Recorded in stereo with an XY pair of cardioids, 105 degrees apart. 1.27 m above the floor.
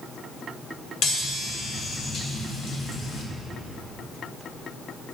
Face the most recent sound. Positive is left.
turn(degrees=65)